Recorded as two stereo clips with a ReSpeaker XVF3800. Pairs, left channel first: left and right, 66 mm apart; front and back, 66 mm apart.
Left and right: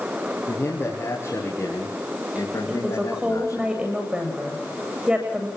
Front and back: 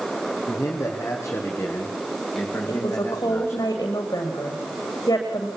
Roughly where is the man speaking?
Ahead left.